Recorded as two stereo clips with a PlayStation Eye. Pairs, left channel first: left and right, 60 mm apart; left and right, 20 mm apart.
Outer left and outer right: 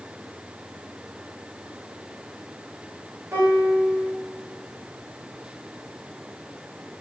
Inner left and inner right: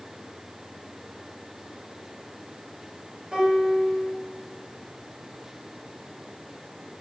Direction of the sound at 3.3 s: 45° right (ahead or behind).